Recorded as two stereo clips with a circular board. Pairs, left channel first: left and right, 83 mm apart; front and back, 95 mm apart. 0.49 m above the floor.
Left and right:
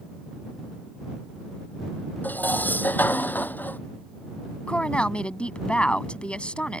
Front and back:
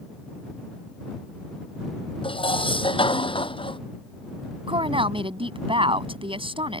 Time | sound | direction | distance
2.2 | dishes clattering | 20° left | ?
4.7 | a woman speaking | 165° left | ?